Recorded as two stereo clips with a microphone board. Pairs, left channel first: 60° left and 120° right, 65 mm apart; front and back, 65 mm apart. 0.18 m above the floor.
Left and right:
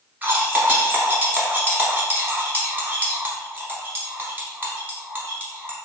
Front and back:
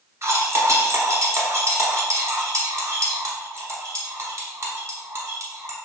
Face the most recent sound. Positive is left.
turn(degrees=-170)